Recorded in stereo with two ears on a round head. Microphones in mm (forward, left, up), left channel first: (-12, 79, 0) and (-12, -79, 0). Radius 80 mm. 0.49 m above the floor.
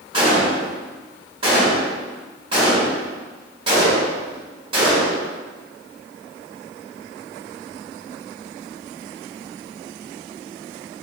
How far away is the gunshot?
About 1.4 m.